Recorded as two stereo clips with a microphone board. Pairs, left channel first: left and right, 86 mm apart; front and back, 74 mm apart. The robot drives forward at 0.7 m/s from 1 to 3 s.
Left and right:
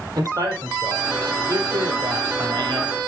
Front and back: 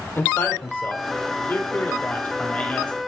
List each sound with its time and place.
0.1 s a man speaking: 55° right, 3.5 m; by 3.0 s 75° right, 3 m